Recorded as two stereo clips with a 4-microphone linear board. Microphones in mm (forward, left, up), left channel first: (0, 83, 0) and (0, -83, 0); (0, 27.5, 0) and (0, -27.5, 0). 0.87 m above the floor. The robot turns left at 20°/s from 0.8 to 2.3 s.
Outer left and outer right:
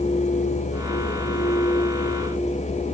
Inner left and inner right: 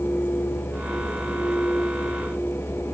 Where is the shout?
No shout in this recording.